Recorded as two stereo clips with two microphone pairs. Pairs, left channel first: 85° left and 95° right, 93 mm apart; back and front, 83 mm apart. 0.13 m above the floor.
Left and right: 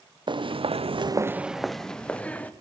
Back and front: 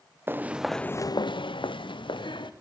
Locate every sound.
0.3 s footsteps: 65° right, 0.9 m; by 2.5 s 160° left, 1.7 m